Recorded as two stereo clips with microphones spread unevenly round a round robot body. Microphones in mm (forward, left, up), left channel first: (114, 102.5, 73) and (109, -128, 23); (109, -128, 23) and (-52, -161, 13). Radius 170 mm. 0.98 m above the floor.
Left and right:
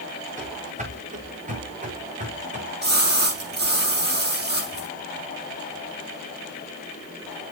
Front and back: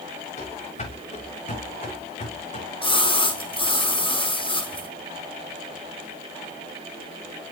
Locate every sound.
0.4 s running footsteps: 30° right, 6.5 m
2.8 s a splash: 45° right, 6 m